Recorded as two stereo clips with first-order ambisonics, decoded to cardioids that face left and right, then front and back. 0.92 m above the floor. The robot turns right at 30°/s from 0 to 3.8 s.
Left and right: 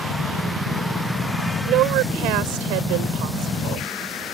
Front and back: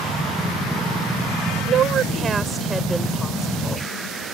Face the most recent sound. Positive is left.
turn(degrees=-65)